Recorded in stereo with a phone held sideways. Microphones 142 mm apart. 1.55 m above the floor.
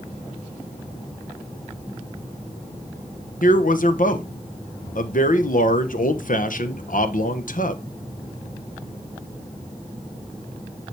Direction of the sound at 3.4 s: 70° left (ahead or behind).